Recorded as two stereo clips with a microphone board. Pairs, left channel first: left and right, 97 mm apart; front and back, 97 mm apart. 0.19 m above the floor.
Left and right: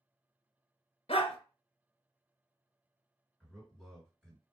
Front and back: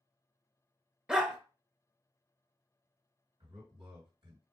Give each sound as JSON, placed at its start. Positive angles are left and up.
{"t": 1.1, "sound": "a dog barking", "azimuth_deg": 95, "distance_m": 0.8}
{"t": 3.4, "sound": "a man speaking", "azimuth_deg": -175, "distance_m": 2.5}